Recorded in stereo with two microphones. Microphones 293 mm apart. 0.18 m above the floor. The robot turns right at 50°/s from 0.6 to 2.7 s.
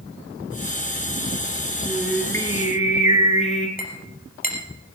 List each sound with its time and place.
1.9 s singing: 15° right, 2.5 m; by 3.7 s 30° left, 2.5 m
3.8 s a clink: 30° left (ahead or behind), 3 m